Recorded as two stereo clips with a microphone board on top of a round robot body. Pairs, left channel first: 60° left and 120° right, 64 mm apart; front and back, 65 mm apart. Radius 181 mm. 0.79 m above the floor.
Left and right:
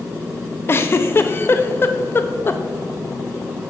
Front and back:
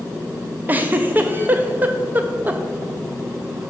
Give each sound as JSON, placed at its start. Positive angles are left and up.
{"t": 0.7, "sound": "a giggle", "azimuth_deg": 115, "distance_m": 0.5}